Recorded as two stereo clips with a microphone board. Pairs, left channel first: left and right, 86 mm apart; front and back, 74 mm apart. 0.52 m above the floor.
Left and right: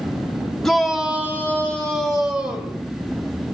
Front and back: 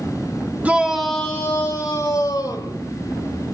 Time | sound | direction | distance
0.6 | a shout | 165° left | 0.9 m